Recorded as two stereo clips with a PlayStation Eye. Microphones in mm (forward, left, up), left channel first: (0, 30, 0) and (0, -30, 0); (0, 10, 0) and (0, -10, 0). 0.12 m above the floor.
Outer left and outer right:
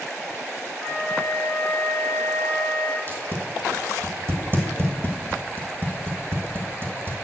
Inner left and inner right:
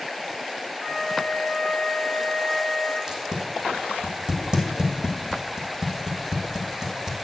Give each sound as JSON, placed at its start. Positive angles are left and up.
{"t": 0.8, "sound": "a flute", "side_deg": -55, "distance_m": 3.0}
{"t": 3.1, "sound": "tape being pulled", "side_deg": -40, "distance_m": 1.7}